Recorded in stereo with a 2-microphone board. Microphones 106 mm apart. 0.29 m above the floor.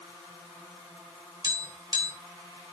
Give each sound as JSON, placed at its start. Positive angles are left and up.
{"t": 1.4, "sound": "tapping", "side_deg": -45, "distance_m": 3.5}